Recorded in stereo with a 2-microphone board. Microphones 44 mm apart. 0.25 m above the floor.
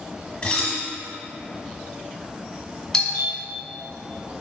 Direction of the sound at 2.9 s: 10° left (ahead or behind).